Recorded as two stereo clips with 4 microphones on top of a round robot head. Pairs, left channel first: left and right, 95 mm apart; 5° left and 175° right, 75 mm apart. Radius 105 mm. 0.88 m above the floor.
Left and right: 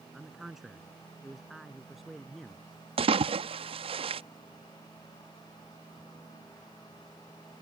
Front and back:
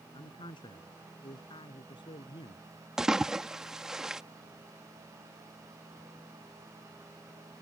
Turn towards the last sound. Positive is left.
turn(degrees=-95)